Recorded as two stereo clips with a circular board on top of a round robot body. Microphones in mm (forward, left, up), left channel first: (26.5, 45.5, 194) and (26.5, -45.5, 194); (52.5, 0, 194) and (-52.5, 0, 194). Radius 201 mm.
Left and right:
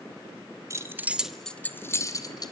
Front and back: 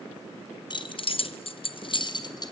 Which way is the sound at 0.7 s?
35° right.